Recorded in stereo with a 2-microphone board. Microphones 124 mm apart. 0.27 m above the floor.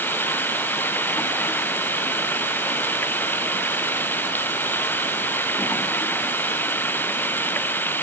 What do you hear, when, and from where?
0.0 s running water: 15° left (ahead or behind)